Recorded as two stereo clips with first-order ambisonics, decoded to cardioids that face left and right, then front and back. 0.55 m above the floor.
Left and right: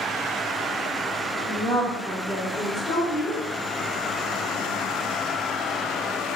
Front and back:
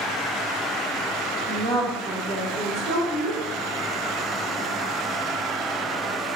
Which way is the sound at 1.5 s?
115° right.